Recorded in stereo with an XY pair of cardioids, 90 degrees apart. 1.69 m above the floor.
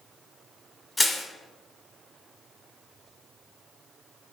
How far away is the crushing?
About 0.9 m.